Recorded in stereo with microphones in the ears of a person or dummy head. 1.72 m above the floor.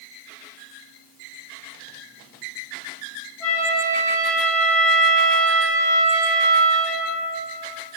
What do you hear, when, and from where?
3.4 s a flute: centre (ahead or behind), 0.9 m